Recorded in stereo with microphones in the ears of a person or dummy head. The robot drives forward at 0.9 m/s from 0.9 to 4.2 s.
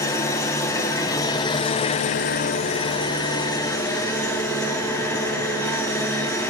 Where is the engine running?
20° left (ahead or behind), 1.3 m; by 6.5 s 10° left (ahead or behind), 2.0 m.